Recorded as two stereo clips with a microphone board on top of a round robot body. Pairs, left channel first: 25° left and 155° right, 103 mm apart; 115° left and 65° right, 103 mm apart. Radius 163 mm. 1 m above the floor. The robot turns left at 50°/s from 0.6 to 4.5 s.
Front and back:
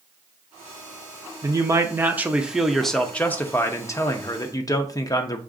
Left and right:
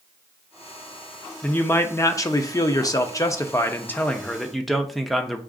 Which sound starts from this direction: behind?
A man speaking, at 1.4 s.